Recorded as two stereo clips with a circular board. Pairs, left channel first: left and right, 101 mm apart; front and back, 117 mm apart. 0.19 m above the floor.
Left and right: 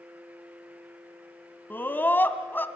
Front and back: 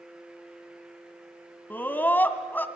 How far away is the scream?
About 1.7 m.